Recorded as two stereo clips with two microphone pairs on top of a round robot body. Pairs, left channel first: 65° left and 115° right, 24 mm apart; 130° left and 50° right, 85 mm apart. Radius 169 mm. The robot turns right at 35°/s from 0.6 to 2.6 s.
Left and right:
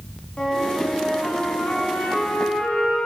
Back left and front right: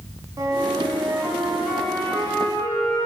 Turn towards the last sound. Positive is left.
turn(degrees=70)